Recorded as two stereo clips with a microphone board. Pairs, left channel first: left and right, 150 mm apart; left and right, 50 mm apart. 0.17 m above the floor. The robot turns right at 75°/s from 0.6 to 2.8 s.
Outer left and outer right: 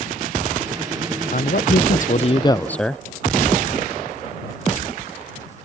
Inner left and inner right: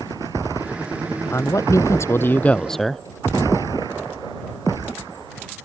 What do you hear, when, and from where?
1.3 s a man speaking: 65° left; by 3.0 s 175° left